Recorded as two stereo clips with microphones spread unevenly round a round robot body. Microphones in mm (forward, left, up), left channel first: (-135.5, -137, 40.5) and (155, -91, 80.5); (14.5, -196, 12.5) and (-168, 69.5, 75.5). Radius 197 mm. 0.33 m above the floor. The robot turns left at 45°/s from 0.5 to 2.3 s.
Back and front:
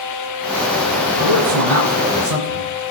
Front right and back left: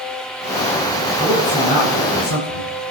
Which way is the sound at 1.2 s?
40° left.